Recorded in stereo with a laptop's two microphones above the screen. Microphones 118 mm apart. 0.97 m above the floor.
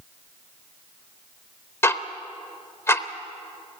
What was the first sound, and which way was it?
Ticking, 20° left (ahead or behind).